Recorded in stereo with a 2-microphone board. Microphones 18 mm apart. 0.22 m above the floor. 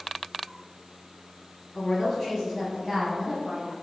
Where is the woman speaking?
20° left (ahead or behind), 1.3 m; by 3.7 s 40° right (ahead or behind), 1.3 m.